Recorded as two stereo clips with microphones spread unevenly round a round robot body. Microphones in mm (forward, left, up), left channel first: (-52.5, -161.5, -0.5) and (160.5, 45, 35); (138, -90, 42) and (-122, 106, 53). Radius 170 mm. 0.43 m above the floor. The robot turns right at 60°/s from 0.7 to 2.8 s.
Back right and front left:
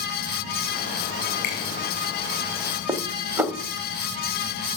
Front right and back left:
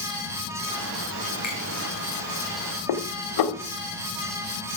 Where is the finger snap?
130° right, 7 m; by 1.6 s 120° right, 7 m.